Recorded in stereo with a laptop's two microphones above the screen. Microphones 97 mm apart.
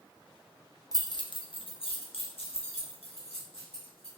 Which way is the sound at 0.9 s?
40° left (ahead or behind).